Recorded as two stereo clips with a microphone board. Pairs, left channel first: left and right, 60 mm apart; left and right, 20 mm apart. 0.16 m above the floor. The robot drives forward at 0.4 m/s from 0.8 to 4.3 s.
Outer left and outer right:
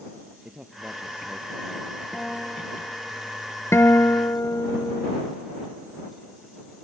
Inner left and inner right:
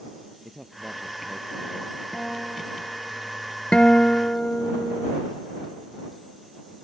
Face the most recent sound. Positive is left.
turn(degrees=55)  # may be behind; listen again after turning